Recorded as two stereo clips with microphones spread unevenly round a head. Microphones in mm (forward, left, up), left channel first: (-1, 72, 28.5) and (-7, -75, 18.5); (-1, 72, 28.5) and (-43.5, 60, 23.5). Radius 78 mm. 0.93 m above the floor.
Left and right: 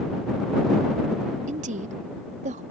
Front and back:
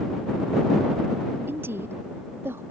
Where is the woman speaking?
130° right.